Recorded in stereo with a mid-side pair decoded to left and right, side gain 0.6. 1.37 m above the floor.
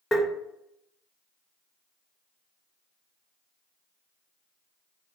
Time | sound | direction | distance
0.1 | tapping | 15° left | 1.3 m